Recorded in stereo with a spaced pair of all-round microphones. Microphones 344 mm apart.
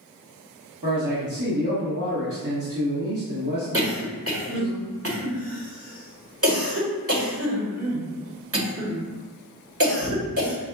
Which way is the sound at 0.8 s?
60° right (ahead or behind).